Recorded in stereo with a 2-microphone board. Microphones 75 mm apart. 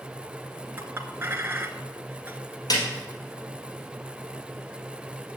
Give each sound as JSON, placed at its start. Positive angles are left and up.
{"t": 0.8, "sound": "a clink", "side_deg": -30, "distance_m": 1.1}
{"t": 2.7, "sound": "a snare drum", "side_deg": 55, "distance_m": 3.5}